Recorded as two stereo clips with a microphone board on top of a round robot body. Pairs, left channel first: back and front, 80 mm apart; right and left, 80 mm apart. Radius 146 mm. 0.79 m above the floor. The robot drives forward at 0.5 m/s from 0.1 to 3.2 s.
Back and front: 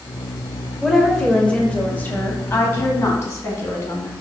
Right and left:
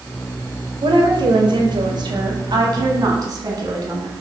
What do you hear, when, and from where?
0.8 s a woman speaking: 90° left, 1.6 m; by 4.1 s 130° left, 2 m